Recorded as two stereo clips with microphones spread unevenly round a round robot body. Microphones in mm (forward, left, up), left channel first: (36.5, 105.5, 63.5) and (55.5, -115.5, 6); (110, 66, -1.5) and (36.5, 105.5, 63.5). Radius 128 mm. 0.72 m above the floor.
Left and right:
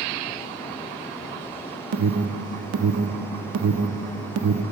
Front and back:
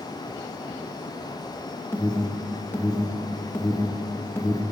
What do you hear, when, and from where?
1.9 s an alarm: 85° right, 0.6 m